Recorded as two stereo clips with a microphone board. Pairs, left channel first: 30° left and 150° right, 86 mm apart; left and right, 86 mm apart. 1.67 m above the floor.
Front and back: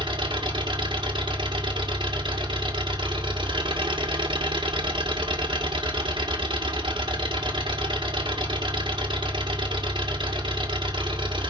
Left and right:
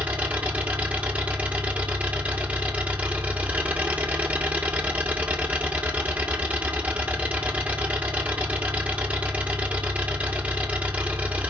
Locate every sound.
0.0 s an engine running: 160° right, 1.9 m